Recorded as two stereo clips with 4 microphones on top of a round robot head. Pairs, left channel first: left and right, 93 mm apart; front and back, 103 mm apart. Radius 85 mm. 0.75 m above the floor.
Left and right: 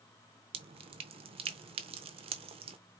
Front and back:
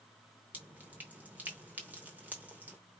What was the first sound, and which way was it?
Dripping, 100° right.